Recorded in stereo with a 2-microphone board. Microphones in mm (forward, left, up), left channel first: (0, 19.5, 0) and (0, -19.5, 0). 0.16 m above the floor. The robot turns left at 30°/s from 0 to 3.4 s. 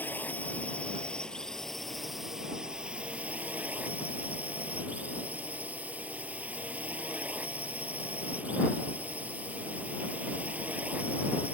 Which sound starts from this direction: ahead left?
A drone, at 0.0 s.